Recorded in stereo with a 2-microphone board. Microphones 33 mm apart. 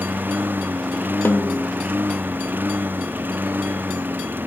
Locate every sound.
0.0 s a lawn mower: 80° right; by 4.5 s 85° right
1.2 s a snare drum: 80° left